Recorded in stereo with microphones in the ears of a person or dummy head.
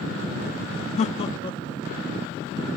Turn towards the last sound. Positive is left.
turn(degrees=20)  # may be behind; listen again after turning